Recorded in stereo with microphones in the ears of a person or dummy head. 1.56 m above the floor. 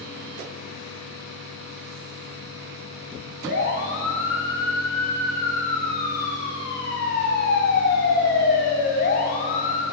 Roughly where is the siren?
Left.